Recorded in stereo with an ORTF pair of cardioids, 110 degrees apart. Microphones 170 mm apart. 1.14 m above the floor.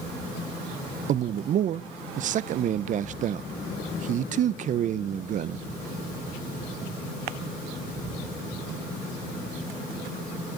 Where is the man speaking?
50° right, 0.5 m.